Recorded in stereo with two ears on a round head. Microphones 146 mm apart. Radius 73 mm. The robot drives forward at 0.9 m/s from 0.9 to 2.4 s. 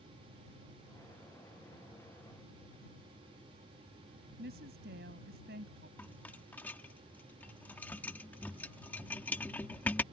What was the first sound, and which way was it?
A woman speaking, 70° right (ahead or behind).